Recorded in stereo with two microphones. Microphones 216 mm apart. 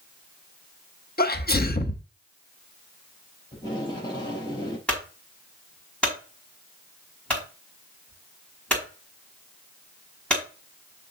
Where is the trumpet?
No trumpet in this recording.